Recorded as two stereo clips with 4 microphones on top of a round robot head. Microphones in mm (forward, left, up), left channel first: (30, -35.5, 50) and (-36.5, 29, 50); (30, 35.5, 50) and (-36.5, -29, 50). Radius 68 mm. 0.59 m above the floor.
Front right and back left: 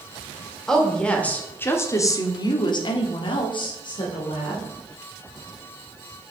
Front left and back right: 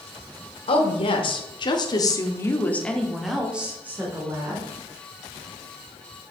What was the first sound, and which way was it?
A woman speaking, 40° left.